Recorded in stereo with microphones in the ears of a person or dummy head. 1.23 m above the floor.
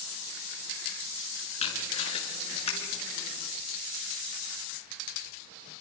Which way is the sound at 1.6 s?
45° left (ahead or behind).